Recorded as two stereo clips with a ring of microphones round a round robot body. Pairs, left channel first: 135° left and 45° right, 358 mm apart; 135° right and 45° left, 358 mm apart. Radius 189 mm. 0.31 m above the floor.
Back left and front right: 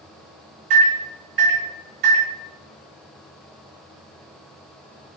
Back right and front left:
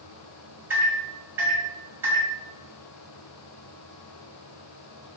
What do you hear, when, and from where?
0.7 s a microwave: 35° right, 1.5 m